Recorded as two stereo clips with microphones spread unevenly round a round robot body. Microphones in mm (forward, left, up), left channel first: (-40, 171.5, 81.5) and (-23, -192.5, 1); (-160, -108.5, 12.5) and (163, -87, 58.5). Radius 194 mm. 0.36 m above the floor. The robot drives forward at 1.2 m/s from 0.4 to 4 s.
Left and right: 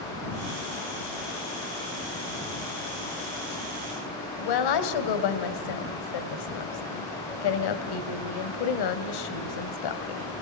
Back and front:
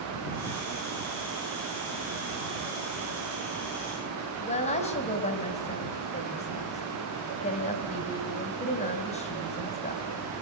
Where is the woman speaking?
115° left, 2.5 m.